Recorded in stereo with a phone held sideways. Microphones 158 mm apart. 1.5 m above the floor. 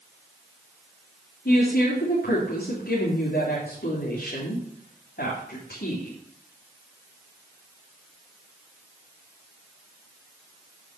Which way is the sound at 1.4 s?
85° left.